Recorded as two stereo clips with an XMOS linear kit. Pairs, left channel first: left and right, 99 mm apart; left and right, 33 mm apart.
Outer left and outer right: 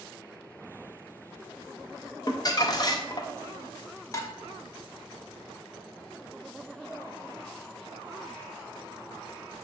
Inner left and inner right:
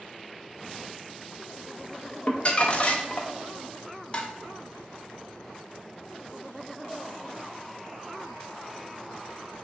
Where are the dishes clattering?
30° left (ahead or behind), 0.6 m.